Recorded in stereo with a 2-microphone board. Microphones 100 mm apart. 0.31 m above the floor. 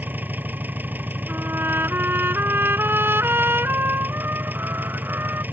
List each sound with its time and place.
0.0 s an engine running: 20° right (ahead or behind)
1.3 s a trumpet: 20° right (ahead or behind)